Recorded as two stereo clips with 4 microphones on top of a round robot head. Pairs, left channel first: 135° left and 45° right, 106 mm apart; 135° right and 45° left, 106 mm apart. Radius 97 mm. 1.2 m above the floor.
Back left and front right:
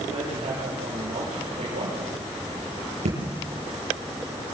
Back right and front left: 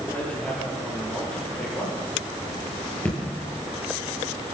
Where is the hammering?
60° right, 9 m.